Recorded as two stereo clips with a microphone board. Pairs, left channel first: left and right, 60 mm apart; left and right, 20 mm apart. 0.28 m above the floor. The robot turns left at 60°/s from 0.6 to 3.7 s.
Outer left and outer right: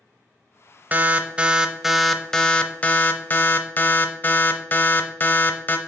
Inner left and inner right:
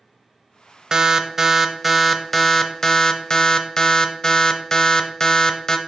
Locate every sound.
0.9 s an alarm: 110° right, 0.7 m; by 5.8 s 80° left, 0.7 m